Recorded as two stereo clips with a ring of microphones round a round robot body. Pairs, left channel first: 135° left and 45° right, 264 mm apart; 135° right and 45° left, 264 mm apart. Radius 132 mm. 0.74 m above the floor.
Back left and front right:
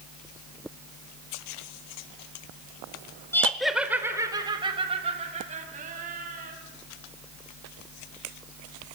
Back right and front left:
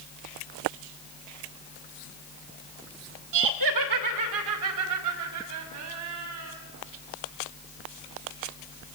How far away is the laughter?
About 2 m.